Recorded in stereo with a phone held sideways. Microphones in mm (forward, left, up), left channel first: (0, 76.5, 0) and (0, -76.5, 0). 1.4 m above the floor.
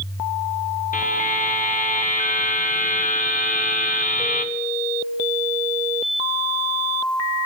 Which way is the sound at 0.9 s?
55° left (ahead or behind).